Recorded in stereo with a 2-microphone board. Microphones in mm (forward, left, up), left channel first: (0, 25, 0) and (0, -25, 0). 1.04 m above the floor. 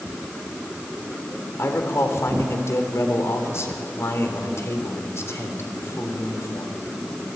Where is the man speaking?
65° left (ahead or behind), 4 m.